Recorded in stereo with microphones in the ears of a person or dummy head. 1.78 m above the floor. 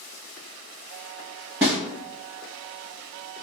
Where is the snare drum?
10° right (ahead or behind), 1.2 m.